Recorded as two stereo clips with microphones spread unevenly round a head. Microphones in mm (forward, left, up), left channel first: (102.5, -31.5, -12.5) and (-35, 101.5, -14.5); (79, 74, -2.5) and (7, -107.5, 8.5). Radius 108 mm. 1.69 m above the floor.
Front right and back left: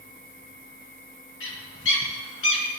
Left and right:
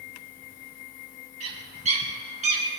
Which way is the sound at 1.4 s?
60° right.